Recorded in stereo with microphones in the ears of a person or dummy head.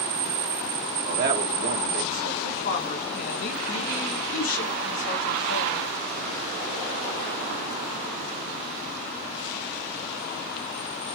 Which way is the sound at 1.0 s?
50° right (ahead or behind).